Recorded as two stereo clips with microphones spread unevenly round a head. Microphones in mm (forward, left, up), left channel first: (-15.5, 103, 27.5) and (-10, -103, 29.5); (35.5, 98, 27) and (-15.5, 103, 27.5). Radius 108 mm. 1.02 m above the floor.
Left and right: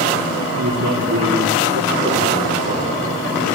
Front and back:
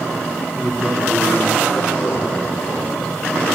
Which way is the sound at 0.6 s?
105° right.